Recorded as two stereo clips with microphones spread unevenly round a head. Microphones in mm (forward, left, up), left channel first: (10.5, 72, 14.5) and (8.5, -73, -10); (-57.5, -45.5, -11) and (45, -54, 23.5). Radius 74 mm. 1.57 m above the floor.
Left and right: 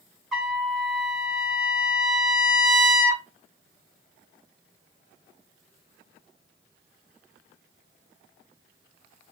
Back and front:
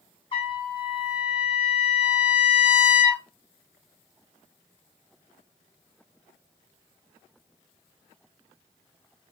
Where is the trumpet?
160° left, 0.8 m.